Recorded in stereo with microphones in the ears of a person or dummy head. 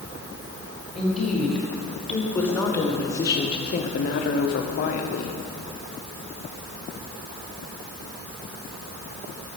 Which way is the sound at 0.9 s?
5° left (ahead or behind).